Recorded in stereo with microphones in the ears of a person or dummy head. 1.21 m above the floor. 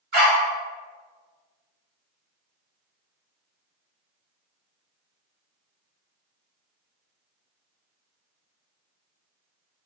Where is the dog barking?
55° right (ahead or behind), 1.0 m.